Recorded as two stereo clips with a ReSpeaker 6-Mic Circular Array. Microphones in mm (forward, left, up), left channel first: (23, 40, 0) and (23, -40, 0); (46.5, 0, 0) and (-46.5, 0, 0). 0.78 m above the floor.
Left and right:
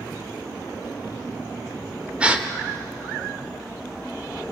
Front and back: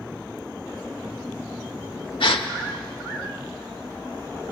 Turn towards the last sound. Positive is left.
turn(degrees=-15)